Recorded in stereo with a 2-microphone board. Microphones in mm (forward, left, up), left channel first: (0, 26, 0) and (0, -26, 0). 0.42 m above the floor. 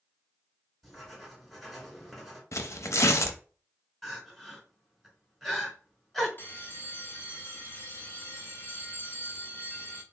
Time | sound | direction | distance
0.8 | writing | 5° left (ahead or behind) | 2.5 m
2.5 | tearing paper | 80° left | 0.7 m
4.0 | crying | 5° left (ahead or behind) | 2.5 m
6.4 | a bell | 45° left (ahead or behind) | 0.7 m